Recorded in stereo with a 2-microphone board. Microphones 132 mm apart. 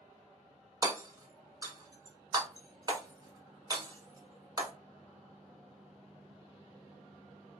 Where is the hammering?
30° right (ahead or behind), 1.0 m.